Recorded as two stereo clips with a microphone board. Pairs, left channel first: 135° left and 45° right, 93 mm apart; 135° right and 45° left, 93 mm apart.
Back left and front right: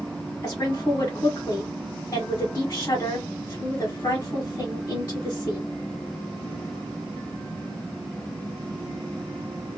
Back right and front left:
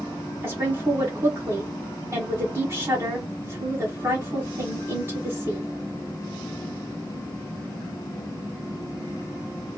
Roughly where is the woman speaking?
Left.